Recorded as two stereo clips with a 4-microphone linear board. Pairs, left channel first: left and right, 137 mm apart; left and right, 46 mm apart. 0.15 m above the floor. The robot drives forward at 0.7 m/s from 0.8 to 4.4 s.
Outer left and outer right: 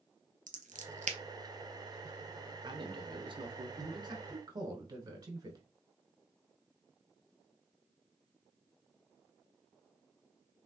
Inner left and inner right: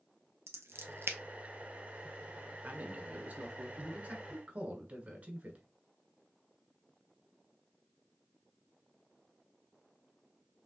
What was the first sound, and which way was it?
Scissors, 70° right (ahead or behind).